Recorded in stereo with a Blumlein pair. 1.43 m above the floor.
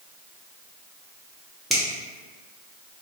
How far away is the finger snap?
About 1.0 m.